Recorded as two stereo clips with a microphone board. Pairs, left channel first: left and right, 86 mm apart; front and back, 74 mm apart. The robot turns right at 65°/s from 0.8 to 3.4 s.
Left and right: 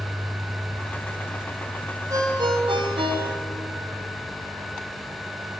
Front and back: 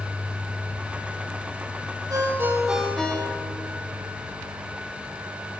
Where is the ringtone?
140° right, 2.5 m; by 3.7 s 55° right, 2.5 m.